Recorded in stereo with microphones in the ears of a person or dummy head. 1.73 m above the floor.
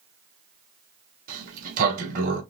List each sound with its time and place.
1.3 s a sliding door: 45° right (ahead or behind), 1.9 m